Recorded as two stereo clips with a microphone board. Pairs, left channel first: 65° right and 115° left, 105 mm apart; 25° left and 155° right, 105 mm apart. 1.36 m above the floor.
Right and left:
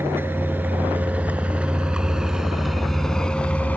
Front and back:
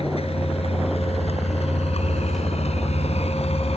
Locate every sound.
0.0 s a vehicle: 45° left; by 3.8 s 5° left